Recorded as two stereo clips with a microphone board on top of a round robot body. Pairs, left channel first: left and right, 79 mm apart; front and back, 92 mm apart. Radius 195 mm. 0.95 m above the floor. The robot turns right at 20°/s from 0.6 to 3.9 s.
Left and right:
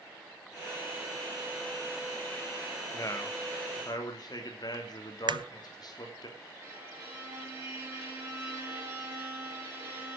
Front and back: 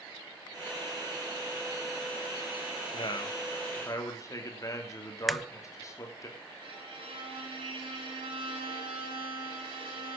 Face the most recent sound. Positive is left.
turn(degrees=-150)